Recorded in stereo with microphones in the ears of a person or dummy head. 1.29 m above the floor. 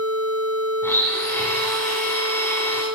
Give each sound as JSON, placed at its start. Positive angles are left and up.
{"t": 0.8, "sound": "a blender", "side_deg": 15, "distance_m": 6.5}